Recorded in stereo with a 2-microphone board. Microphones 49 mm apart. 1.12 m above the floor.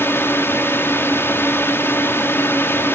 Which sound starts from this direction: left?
A drone, at 0.0 s.